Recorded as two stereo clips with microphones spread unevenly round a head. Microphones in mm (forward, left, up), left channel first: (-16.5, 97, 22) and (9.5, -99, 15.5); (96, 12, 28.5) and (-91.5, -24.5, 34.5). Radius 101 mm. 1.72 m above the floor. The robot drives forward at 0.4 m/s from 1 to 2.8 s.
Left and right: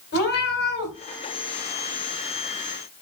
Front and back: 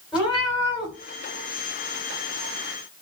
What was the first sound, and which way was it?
A cat meowing, 110° left.